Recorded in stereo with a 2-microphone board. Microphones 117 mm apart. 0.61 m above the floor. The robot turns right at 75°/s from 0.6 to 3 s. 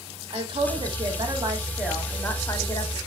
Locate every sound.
0.3 s a woman speaking: 100° right, 0.8 m; by 3.0 s 75° left, 0.8 m